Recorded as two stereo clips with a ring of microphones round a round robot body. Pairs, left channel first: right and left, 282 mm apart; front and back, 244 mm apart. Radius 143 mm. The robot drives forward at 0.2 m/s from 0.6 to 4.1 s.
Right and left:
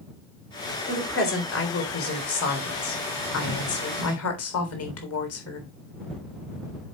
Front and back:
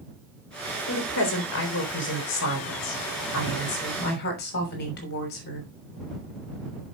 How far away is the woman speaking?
About 3.5 m.